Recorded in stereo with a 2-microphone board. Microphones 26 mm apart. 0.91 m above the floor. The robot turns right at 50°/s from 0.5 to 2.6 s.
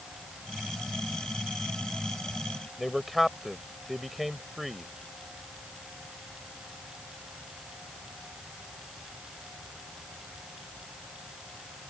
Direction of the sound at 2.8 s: Centre (ahead or behind).